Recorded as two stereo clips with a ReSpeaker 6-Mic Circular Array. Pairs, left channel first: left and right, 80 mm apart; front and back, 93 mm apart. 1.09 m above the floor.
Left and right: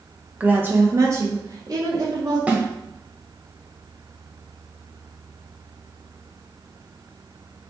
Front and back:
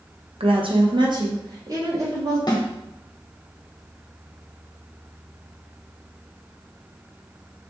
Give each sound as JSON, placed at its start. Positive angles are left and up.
{"t": 0.4, "sound": "a woman speaking", "azimuth_deg": -165, "distance_m": 0.8}
{"t": 2.5, "sound": "a snare drum", "azimuth_deg": -25, "distance_m": 1.0}